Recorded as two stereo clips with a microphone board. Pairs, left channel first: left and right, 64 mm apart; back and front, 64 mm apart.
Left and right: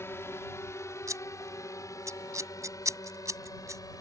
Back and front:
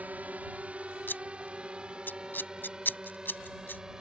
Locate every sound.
0.0 s a drone: 60° left; by 4.0 s 80° left
1.1 s scissors: 125° right